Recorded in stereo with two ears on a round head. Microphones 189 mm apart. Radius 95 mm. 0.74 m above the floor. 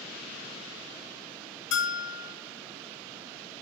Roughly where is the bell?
Left.